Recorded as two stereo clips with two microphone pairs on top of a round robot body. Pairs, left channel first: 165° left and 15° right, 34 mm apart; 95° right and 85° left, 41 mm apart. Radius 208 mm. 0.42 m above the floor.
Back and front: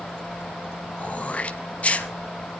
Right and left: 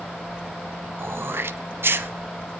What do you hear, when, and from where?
1.0 s throat clearing: 115° left, 1.0 m